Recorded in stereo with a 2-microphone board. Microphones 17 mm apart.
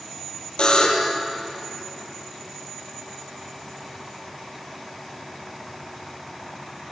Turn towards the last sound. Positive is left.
turn(degrees=60)  # may be behind; listen again after turning